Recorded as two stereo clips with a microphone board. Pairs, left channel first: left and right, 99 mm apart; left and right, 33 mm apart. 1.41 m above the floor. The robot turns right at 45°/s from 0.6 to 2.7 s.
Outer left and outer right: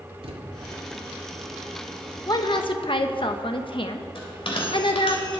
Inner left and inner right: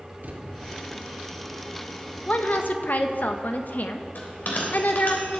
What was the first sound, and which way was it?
A thud, 70° right (ahead or behind).